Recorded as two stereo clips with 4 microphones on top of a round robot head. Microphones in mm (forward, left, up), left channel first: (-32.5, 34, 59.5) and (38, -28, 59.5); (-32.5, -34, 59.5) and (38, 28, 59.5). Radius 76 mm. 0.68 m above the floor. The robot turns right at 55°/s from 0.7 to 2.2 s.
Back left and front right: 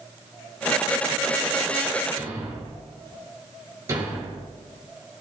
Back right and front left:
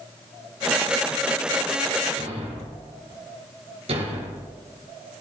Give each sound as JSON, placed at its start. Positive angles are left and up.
{"t": 2.2, "sound": "a thud", "azimuth_deg": 15, "distance_m": 5.0}